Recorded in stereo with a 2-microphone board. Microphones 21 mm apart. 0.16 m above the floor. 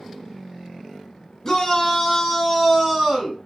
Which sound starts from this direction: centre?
A shout, at 1.4 s.